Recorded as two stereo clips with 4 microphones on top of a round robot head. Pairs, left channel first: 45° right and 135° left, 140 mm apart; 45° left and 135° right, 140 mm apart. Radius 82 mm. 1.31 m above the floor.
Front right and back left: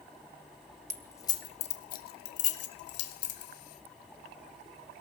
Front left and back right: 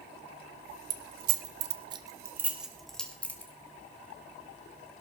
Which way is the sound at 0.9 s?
125° right.